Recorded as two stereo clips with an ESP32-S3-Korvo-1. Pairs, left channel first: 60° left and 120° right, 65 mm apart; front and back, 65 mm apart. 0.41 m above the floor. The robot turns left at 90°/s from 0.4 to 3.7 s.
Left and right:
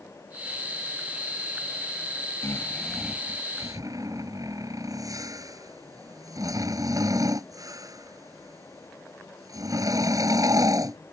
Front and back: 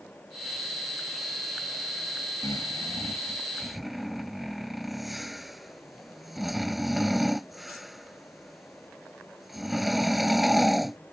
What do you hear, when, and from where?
2.4 s snoring: 20° left; by 11.0 s 95° right